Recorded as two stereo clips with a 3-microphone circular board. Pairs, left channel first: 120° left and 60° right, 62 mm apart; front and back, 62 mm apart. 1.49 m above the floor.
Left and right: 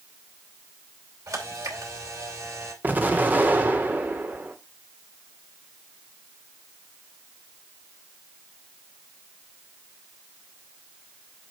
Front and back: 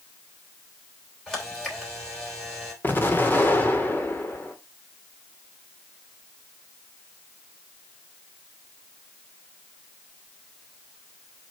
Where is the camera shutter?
85° right, 3 m.